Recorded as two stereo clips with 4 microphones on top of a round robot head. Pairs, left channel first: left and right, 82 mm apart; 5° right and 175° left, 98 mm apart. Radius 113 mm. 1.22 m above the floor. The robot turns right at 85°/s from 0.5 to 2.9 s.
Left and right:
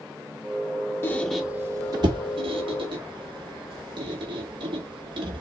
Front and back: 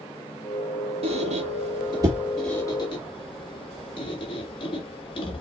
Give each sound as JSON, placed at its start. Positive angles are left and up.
{"t": 1.0, "sound": "a squeak", "azimuth_deg": 150, "distance_m": 1.3}